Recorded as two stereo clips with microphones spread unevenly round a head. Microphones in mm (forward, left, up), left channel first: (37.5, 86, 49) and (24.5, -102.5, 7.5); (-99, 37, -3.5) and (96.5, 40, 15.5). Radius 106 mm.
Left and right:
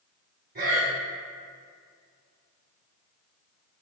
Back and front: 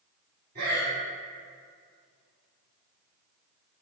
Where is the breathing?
50° right, 2 m.